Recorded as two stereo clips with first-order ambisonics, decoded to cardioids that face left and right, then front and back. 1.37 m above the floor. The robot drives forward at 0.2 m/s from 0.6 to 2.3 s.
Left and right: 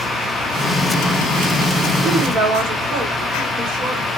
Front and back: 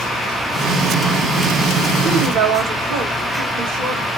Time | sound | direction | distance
2.0 | a woman speaking | 140° right | 1.6 m